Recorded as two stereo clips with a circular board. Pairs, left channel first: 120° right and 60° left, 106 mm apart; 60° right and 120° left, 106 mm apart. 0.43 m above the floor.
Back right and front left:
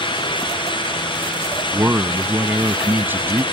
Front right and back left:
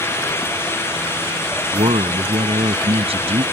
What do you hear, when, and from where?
1.7 s a man speaking: 130° left